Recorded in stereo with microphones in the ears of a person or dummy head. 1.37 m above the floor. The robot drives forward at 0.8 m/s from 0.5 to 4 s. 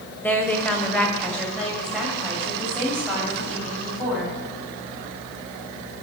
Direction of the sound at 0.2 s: 5° left (ahead or behind).